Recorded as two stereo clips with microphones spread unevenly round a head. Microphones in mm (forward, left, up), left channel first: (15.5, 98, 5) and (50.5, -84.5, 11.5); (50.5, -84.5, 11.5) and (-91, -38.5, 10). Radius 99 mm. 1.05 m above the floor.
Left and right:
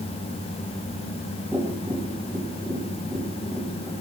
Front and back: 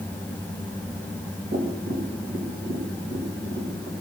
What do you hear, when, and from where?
1.5 s tapping: 165° right, 3 m